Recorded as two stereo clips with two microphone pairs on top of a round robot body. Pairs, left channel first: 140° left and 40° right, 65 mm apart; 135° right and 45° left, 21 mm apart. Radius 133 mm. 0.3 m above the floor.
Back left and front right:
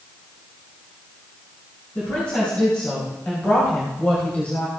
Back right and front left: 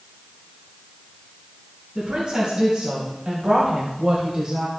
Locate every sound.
1.9 s a woman speaking: 80° left, 5 m